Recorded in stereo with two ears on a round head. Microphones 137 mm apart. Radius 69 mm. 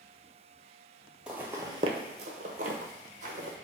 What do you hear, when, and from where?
1.3 s footsteps: 5° right (ahead or behind), 0.5 m; by 3.6 s 55° right (ahead or behind), 1.1 m